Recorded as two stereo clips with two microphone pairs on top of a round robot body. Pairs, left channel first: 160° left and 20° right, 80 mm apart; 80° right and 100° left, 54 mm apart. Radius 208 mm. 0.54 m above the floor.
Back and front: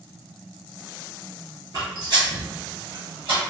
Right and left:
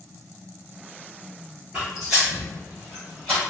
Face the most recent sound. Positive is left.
turn(degrees=0)